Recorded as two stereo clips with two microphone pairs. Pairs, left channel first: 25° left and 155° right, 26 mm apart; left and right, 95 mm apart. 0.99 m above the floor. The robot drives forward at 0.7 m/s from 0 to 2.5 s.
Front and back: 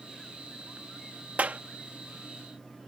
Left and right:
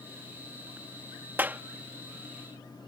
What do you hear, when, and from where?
1.4 s a clap: 155° right; by 1.6 s 160° right